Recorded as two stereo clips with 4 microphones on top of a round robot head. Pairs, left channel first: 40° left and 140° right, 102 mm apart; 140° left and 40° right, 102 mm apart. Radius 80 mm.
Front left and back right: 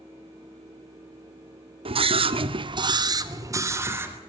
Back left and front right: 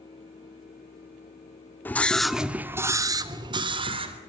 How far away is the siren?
I don't hear a siren.